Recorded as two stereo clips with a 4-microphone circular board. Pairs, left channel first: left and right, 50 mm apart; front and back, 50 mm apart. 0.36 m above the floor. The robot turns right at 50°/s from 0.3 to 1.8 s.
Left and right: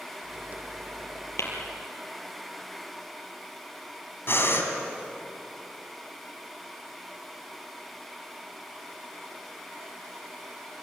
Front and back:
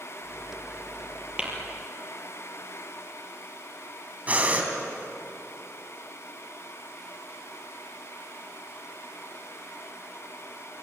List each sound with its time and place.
1.4 s tapping: 110° left, 5.5 m; by 1.5 s 115° left, 5.5 m
4.3 s breathing: 120° left, 3 m